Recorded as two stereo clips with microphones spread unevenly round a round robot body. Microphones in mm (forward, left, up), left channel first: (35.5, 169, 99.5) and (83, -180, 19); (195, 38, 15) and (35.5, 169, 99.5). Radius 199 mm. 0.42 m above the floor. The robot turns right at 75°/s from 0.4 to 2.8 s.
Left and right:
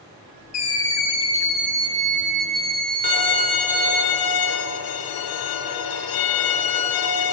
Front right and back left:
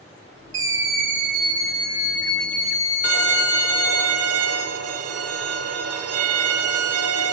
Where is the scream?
130° left, 1.0 m; by 4.0 s 60° right, 1.0 m.